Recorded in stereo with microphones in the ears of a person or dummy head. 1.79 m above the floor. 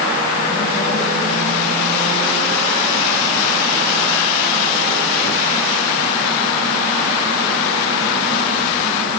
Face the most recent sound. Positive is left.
No sound to turn to.